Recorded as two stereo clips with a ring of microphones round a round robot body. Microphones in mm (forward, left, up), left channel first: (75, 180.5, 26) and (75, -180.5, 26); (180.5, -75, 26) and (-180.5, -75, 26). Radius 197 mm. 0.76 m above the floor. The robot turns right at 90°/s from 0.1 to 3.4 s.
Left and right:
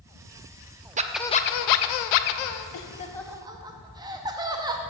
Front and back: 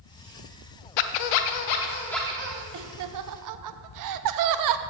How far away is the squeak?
About 0.6 m.